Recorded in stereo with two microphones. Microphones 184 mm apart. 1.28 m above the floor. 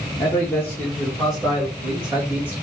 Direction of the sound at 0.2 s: 20° left (ahead or behind).